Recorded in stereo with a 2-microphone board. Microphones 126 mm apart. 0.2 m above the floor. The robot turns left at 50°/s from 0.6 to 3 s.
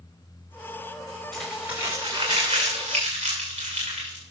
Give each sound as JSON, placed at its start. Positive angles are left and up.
{"t": 1.3, "sound": "crumpling", "side_deg": 5, "distance_m": 4.5}